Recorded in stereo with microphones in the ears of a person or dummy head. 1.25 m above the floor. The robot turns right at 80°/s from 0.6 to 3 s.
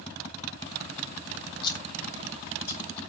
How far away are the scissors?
About 3.5 m.